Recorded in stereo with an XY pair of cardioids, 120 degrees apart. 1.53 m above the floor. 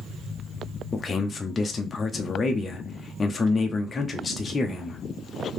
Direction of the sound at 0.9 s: 25° left.